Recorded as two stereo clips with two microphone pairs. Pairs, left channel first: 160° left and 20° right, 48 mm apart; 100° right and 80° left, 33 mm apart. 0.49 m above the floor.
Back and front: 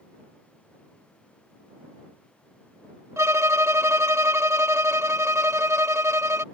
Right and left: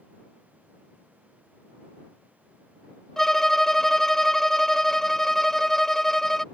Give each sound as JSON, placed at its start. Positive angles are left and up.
{"t": 3.2, "sound": "a violin", "azimuth_deg": -20}